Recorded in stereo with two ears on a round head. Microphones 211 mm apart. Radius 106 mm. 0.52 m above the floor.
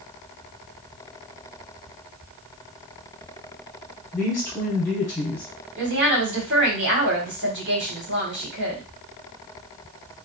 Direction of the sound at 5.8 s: 50° right (ahead or behind).